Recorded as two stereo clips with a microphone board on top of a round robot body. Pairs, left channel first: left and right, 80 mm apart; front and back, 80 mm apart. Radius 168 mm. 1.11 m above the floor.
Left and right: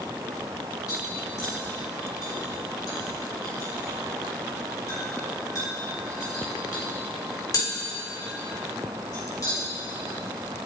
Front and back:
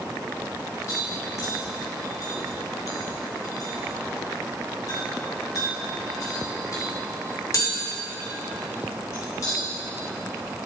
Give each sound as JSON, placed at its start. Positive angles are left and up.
{"t": 0.9, "sound": "tapping", "azimuth_deg": 50, "distance_m": 3.0}